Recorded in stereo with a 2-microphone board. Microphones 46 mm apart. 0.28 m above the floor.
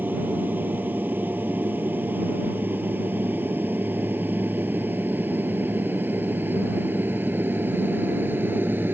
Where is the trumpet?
No trumpet in this recording.